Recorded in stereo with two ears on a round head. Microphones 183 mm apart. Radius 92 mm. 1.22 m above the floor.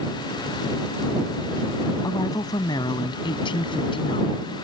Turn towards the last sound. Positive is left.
turn(degrees=30)  # may be behind; listen again after turning